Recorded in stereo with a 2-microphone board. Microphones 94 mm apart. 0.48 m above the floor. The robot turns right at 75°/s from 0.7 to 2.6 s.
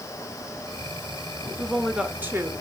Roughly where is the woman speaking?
Behind.